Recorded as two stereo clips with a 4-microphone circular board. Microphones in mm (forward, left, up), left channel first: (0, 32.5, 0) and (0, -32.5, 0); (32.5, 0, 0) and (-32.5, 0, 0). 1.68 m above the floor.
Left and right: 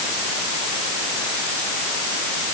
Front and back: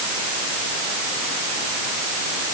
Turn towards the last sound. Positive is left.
No sound to turn to.